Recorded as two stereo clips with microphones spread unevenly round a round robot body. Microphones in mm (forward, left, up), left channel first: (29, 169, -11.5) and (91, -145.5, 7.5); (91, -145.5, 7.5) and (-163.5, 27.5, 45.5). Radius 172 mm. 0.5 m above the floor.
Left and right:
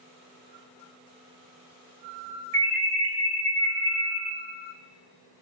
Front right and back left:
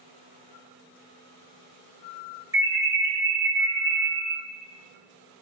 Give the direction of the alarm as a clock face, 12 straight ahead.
4 o'clock.